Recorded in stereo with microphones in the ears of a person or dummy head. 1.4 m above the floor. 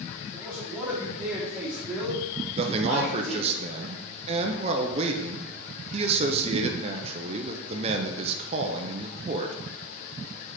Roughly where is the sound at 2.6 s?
Right.